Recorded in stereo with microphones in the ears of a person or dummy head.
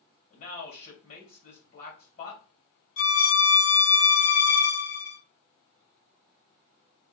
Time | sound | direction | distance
0.3 | a man speaking | 55° left (ahead or behind) | 2.5 m
3.0 | a violin | 85° left | 2.5 m